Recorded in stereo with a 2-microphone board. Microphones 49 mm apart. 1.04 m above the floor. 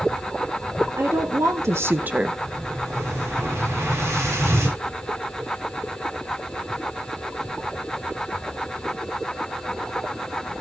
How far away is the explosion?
About 8 m.